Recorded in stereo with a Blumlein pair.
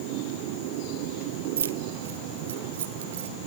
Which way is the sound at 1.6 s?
65° right.